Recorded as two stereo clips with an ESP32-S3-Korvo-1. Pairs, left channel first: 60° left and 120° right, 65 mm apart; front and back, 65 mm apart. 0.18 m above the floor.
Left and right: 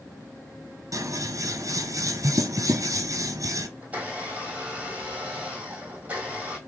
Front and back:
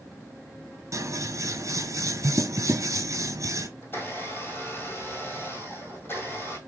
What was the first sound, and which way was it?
Scissors, 140° right.